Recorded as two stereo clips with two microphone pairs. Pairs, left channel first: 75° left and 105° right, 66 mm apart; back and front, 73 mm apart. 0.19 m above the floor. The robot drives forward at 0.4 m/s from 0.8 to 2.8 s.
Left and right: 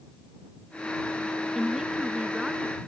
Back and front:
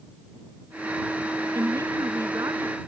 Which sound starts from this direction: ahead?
A woman speaking, at 1.6 s.